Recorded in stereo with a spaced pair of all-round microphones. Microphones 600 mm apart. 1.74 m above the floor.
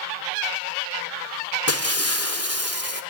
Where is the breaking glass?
25° left (ahead or behind), 1.9 m.